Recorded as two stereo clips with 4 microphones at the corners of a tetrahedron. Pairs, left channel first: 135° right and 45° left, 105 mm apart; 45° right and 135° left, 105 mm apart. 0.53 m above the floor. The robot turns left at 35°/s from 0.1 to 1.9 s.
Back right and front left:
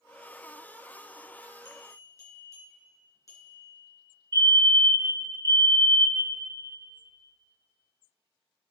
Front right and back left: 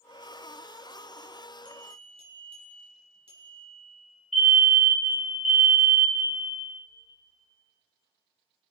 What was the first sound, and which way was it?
A bell, 175° left.